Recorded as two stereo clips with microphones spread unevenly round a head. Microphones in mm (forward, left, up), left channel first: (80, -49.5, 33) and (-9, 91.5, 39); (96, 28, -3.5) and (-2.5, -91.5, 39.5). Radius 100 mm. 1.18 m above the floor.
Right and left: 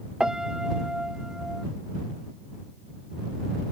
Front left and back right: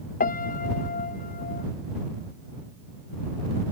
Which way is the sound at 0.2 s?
35° left.